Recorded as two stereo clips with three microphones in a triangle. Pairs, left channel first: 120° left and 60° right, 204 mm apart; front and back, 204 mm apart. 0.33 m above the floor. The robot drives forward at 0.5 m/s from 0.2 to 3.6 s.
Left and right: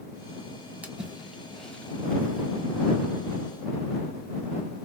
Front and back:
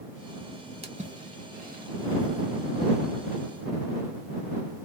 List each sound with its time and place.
0.8 s a splash: 140° right, 1.1 m; by 3.5 s 165° right, 2 m